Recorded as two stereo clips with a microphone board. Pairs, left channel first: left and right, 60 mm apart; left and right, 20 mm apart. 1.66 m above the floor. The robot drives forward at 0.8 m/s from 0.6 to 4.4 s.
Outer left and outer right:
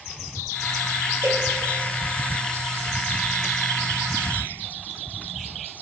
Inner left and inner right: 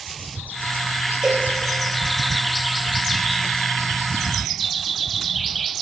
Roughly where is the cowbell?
Right.